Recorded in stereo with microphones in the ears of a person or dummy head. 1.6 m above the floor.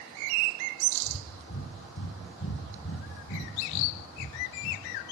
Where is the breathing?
80° left, 6.5 m.